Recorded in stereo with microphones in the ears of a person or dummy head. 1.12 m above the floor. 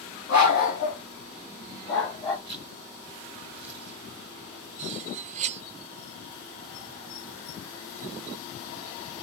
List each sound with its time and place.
0.3 s a dog barking: 55° left (ahead or behind), 3 m; by 2.4 s 25° left (ahead or behind), 2.5 m
2.5 s a zipper: 40° left (ahead or behind), 6 m
4.8 s cutlery clinking: 40° right (ahead or behind), 0.8 m